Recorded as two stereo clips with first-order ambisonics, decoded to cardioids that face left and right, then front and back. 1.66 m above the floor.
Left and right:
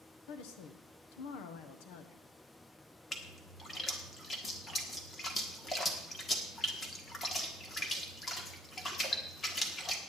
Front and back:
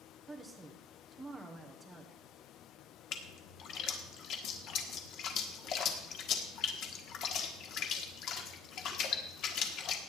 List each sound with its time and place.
0.3 s a woman speaking: 95° left, 1.2 m
3.1 s a splash: 25° left, 1.5 m